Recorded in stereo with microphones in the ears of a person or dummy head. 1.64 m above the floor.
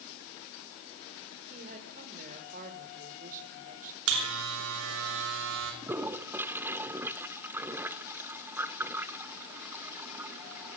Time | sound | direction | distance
1.5 | a woman speaking | 45° right (ahead or behind) | 6.5 m
4.1 | a buzzer | 70° right (ahead or behind) | 6.5 m
5.8 | a toilet flushing | 10° right (ahead or behind) | 1.5 m